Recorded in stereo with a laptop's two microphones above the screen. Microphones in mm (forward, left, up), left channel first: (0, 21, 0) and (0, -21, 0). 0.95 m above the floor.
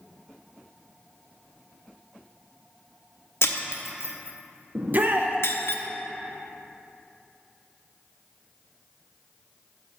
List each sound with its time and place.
3.4 s breaking glass: 75° left (ahead or behind), 0.7 m
4.8 s a shout: 50° right (ahead or behind), 0.6 m